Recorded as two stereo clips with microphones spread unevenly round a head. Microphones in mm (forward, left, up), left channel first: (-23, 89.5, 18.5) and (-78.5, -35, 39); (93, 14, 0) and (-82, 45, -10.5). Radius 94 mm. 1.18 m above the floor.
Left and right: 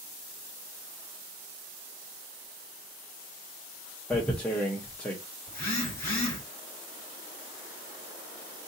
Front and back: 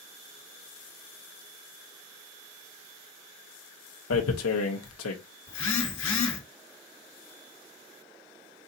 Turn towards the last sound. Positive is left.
turn(degrees=-20)